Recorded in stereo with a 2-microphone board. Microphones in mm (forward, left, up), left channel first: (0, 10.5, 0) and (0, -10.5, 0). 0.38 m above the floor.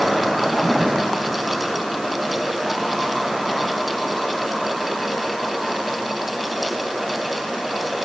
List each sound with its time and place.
Only background noise.